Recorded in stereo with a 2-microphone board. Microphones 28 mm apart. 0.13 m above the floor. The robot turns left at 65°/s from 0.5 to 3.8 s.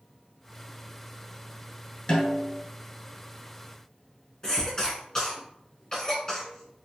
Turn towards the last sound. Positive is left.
turn(degrees=20)  # may be behind; listen again after turning